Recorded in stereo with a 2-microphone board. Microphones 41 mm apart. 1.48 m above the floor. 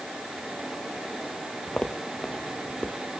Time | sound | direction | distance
1.7 | footsteps | 25° left (ahead or behind) | 1.8 m